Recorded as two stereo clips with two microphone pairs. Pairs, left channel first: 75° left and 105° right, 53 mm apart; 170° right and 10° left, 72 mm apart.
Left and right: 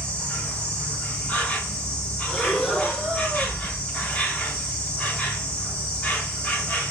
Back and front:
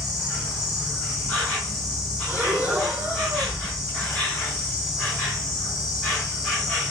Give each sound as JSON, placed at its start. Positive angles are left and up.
{"t": 0.0, "sound": "an insect", "azimuth_deg": 110, "distance_m": 1.8}
{"t": 2.3, "sound": "breathing", "azimuth_deg": 5, "distance_m": 0.9}